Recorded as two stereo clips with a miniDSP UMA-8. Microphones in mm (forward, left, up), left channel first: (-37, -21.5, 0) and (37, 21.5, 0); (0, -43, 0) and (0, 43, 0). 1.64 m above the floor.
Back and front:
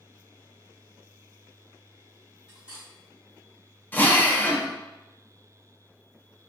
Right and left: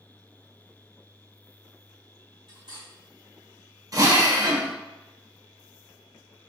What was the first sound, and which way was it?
Cutlery clinking, 105° left.